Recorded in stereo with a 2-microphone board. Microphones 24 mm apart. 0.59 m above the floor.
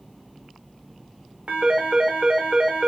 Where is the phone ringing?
60° right (ahead or behind), 1.2 m.